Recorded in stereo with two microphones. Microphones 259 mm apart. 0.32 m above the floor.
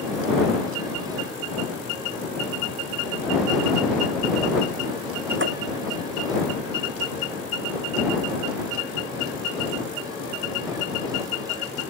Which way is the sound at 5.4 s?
50° right (ahead or behind).